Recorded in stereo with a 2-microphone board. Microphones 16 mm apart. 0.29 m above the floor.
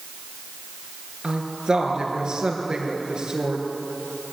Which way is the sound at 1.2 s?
55° right (ahead or behind).